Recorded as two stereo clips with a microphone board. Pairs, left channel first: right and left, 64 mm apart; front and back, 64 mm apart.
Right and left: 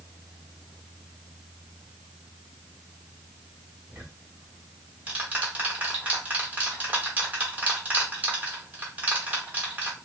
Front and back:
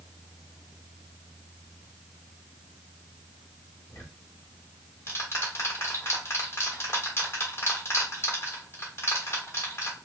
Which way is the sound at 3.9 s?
35° left.